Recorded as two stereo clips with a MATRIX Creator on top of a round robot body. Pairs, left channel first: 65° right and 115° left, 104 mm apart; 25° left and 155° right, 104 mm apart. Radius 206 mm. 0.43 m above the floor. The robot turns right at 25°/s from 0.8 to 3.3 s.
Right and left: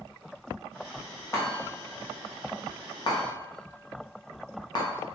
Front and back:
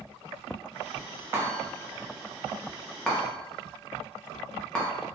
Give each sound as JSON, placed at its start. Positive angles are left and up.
{"t": 1.3, "sound": "a chime", "azimuth_deg": -105, "distance_m": 1.2}